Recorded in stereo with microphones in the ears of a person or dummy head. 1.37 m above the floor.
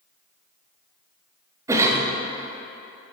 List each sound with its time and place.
1.7 s a cough: 15° right (ahead or behind), 0.8 m